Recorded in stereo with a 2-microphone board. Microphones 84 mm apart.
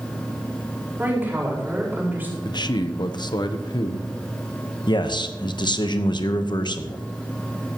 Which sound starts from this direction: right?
A woman speaking, at 1.0 s.